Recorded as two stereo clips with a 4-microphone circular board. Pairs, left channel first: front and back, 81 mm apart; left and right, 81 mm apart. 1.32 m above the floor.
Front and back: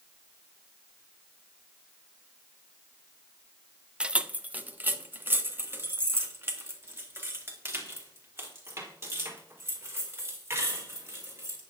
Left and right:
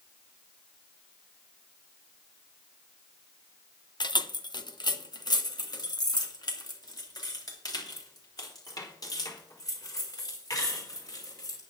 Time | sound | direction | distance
4.0 | keys jangling | 105° left | 0.6 m